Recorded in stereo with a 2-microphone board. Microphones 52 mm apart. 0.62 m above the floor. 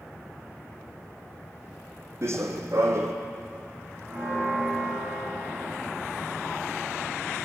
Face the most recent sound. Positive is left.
turn(degrees=-45)  # may be behind; listen again after turning